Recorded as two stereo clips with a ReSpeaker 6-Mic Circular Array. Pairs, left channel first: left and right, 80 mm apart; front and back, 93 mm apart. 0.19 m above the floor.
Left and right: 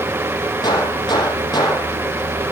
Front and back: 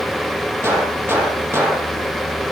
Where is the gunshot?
115° left, 6.5 m.